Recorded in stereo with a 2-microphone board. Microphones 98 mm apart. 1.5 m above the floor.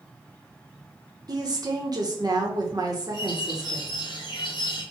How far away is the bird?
About 2 m.